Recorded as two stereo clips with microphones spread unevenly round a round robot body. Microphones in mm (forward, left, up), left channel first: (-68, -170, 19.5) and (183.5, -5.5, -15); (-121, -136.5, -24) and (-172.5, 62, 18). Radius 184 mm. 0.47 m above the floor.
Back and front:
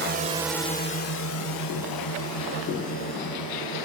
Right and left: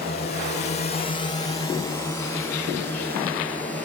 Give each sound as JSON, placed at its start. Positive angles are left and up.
{"t": 0.0, "sound": "a drone", "azimuth_deg": -15}